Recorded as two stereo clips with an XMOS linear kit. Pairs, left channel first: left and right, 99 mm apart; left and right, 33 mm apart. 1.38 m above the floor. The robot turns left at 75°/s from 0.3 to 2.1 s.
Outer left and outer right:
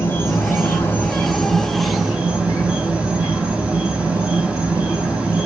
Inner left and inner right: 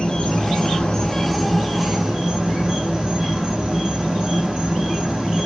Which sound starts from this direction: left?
An insect, at 0.0 s.